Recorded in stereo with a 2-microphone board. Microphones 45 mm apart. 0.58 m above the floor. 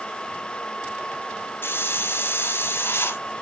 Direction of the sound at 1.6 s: 60° left (ahead or behind).